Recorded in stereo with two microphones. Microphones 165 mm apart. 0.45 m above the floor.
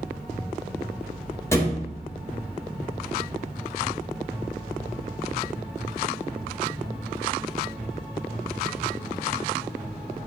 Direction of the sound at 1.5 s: 15° left (ahead or behind).